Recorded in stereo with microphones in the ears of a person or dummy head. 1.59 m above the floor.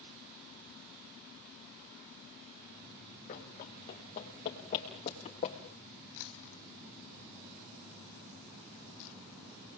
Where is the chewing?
70° left (ahead or behind), 1.7 m.